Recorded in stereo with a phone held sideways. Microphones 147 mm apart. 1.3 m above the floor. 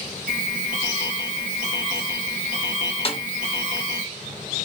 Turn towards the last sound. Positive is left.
turn(degrees=40)  # may be behind; listen again after turning